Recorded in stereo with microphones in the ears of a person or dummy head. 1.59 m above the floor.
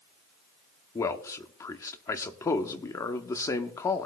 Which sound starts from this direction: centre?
A man speaking, at 0.9 s.